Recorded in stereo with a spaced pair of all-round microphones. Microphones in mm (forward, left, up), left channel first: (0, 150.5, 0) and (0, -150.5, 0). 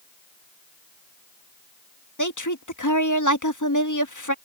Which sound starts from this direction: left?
A woman speaking, at 2.2 s.